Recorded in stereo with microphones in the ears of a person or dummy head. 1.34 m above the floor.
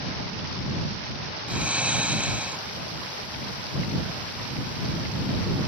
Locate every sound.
1.5 s snoring: 5° right (ahead or behind)